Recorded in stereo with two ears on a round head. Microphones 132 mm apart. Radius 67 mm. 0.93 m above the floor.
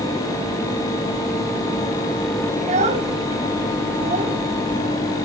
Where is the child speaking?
50° right (ahead or behind), 4 m.